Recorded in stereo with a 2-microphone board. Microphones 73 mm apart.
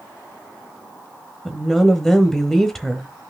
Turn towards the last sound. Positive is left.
turn(degrees=5)  # may be behind; listen again after turning